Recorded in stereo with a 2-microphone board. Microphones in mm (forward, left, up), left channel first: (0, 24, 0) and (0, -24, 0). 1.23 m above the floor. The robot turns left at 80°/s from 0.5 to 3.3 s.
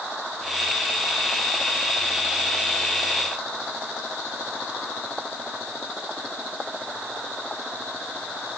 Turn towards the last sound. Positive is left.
No sound to turn to.